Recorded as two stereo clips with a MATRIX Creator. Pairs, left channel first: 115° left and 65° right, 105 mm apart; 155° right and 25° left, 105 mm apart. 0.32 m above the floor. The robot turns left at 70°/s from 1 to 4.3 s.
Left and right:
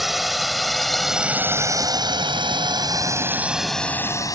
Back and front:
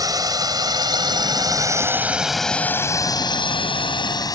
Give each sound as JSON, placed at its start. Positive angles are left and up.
{"t": 0.0, "sound": "a drone", "azimuth_deg": 20}